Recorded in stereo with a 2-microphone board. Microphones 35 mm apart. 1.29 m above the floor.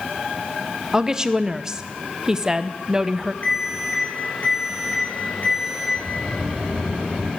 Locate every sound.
0.9 s a woman speaking: 20° right (ahead or behind), 0.5 m
3.4 s an alarm: 60° left (ahead or behind), 3.5 m
6.0 s a sliding door: 55° right (ahead or behind), 3.5 m